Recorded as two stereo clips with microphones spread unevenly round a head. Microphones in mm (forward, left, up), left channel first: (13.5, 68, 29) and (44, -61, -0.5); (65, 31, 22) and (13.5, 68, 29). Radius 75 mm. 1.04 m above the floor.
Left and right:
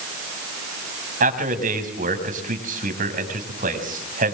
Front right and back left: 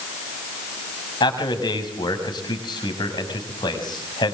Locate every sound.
1.2 s a man speaking: 50° right, 6.5 m